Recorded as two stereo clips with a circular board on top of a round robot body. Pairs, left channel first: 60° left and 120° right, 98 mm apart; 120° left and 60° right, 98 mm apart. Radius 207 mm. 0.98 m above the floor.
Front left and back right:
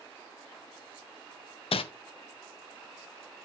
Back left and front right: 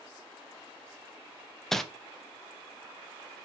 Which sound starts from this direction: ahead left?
Crumpling, at 1.7 s.